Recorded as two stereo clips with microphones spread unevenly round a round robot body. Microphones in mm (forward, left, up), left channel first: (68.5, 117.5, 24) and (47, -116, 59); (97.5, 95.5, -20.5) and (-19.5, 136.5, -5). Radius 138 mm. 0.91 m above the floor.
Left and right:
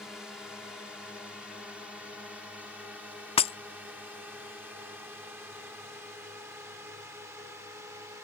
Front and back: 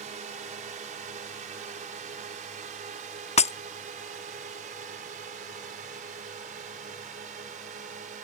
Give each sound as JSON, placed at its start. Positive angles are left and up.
{"t": 0.0, "sound": "a drone", "azimuth_deg": 170}
{"t": 3.4, "sound": "breaking glass", "azimuth_deg": 15}